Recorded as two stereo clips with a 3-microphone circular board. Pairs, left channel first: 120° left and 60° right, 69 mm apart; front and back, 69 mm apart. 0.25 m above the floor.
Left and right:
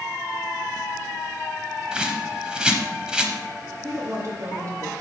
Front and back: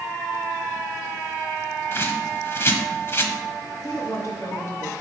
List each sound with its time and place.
1.9 s a bird: 10° left, 0.9 m
3.8 s a woman speaking: 30° right, 1.9 m